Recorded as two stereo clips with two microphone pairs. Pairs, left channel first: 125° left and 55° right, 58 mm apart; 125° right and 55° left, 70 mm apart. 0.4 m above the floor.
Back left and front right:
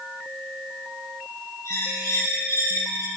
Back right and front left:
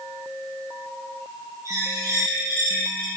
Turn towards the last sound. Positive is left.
turn(degrees=95)